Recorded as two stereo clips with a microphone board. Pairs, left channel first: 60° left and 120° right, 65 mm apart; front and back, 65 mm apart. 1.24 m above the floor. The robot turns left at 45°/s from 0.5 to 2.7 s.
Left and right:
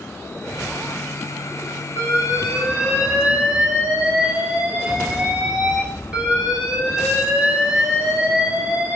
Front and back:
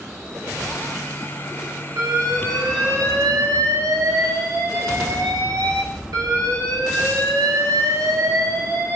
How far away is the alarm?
About 5 m.